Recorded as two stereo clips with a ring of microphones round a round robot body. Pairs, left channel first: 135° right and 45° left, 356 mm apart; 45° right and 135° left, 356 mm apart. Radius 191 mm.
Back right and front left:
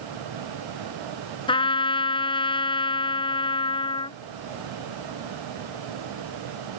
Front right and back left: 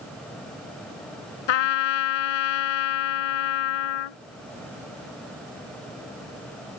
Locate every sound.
1.5 s a trumpet: 60° right